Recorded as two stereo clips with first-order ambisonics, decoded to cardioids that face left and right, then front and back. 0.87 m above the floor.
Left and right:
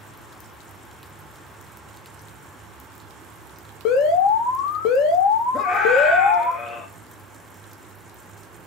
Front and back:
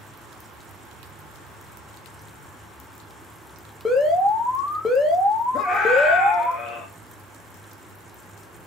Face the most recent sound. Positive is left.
turn(degrees=40)